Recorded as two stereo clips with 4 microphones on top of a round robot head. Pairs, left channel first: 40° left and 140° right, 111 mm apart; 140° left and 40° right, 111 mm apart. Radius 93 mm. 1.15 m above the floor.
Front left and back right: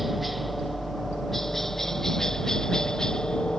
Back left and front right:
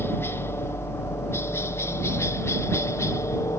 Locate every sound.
0.0 s a helicopter: 135° left; by 3.6 s 115° left